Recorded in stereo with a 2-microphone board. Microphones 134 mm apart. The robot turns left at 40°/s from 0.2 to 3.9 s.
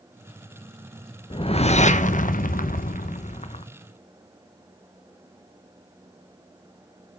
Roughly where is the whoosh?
Behind left.